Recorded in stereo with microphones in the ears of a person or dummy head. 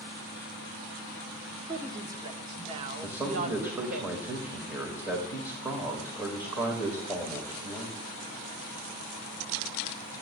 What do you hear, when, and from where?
1.7 s a woman speaking: 15° right (ahead or behind), 1.0 m; by 4.0 s 55° right (ahead or behind), 1.8 m
3.0 s a man speaking: 10° right (ahead or behind), 1.9 m